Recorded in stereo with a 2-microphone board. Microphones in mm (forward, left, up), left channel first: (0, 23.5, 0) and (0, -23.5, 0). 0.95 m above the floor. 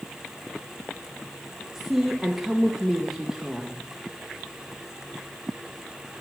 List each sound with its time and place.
1.8 s a woman speaking: 5° right (ahead or behind), 0.9 m